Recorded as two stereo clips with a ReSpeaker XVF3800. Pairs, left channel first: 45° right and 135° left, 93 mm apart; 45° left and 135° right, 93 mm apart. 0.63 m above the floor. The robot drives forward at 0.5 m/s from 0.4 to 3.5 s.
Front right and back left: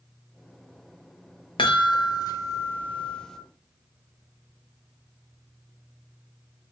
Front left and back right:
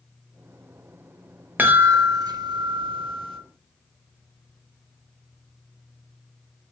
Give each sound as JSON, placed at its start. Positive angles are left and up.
{"t": 1.6, "sound": "a chime", "azimuth_deg": -65, "distance_m": 0.8}